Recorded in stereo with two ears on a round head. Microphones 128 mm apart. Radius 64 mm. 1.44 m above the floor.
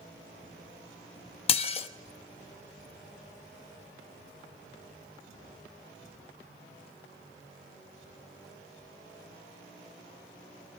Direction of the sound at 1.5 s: 40° left (ahead or behind).